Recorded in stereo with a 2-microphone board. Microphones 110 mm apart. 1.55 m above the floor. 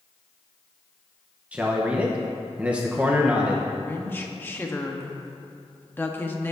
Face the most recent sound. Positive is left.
turn(degrees=20)  # may be behind; listen again after turning